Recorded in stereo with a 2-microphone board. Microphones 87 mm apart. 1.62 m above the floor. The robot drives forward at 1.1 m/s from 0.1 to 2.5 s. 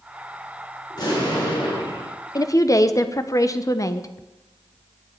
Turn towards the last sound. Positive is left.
turn(degrees=40)  # may be behind; listen again after turning